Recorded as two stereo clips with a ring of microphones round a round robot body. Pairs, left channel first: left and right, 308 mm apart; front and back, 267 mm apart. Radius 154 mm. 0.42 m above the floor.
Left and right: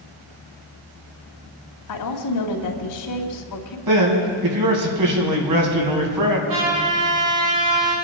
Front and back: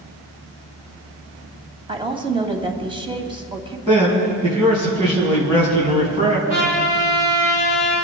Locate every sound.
1.9 s a woman speaking: 110° left, 2.5 m
3.9 s a man speaking: 110° right, 4 m
6.5 s a trumpet: 115° right, 5 m